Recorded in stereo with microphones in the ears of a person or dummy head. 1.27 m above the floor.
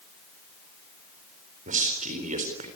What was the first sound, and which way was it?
A man speaking, 35° right (ahead or behind).